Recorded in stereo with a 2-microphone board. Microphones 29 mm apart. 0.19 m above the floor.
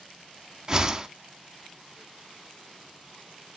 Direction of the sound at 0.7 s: 20° right (ahead or behind).